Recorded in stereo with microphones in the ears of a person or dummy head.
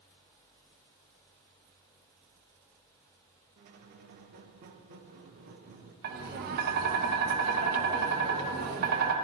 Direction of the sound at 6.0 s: 50° right (ahead or behind).